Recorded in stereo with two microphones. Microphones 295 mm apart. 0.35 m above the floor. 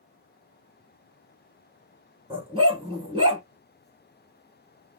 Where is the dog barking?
20° right (ahead or behind), 1.5 m.